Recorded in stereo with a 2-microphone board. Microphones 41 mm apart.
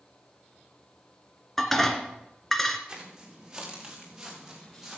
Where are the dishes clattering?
10° left (ahead or behind), 1.6 m.